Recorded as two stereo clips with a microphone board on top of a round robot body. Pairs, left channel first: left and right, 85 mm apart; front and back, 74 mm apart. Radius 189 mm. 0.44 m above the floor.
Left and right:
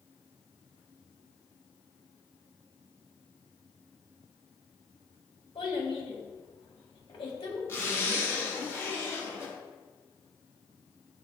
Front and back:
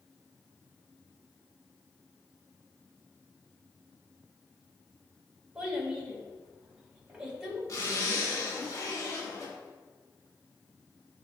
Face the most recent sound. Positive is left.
turn(degrees=35)